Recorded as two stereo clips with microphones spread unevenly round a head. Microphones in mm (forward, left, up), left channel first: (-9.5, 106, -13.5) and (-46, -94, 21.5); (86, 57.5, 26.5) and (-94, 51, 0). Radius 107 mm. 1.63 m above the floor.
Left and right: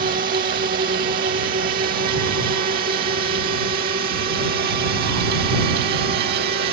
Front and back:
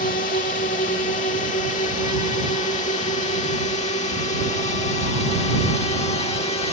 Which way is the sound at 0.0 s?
50° right.